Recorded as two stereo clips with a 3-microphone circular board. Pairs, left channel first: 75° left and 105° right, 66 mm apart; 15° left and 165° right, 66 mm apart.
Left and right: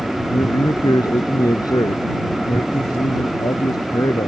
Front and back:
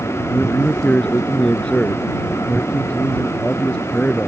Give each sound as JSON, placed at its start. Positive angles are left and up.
{"t": 0.3, "sound": "a man speaking", "azimuth_deg": 85}